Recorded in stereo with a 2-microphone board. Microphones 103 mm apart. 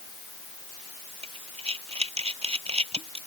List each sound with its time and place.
1.2 s breathing: 75° right (ahead or behind)